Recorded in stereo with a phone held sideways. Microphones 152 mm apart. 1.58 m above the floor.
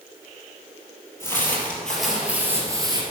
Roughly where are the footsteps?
Centre.